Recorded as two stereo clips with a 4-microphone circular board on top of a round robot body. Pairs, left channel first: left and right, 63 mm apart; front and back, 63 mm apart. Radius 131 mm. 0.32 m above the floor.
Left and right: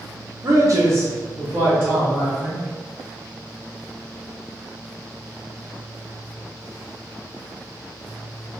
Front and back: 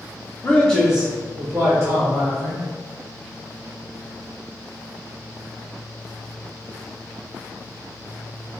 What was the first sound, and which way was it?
A man speaking, 60° right.